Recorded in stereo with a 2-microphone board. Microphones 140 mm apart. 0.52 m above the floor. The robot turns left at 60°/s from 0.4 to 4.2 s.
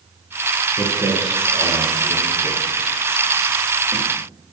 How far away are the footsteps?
About 3 m.